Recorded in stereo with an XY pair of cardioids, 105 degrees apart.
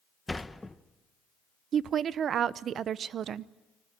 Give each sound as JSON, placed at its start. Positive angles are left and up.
{"t": 0.3, "sound": "a sliding door", "azimuth_deg": 10, "distance_m": 1.0}
{"t": 1.7, "sound": "a woman speaking", "azimuth_deg": -60, "distance_m": 0.7}